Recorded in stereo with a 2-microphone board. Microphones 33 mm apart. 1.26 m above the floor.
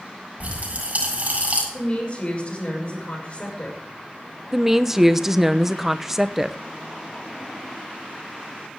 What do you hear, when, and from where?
0.4 s a pop: 45° right (ahead or behind), 8 m
1.7 s a woman speaking: 40° left (ahead or behind), 6 m
4.5 s a woman speaking: 10° right (ahead or behind), 0.8 m